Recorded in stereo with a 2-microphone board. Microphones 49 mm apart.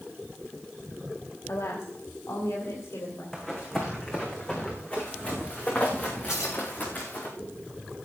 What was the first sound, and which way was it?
A woman speaking, 70° left (ahead or behind).